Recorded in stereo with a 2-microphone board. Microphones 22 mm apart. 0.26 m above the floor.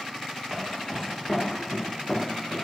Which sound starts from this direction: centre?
Footsteps, at 0.5 s.